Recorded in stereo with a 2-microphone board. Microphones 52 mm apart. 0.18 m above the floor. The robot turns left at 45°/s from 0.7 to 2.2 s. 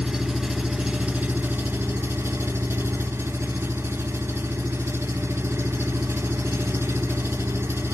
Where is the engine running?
10° right, 0.7 m; by 7.9 s 75° right, 0.7 m.